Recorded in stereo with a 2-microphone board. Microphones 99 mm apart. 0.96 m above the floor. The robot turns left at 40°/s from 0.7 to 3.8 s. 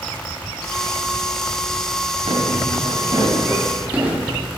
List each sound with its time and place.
2.3 s footsteps: 80° right, 6 m; by 4.3 s 15° right (ahead or behind), 6.5 m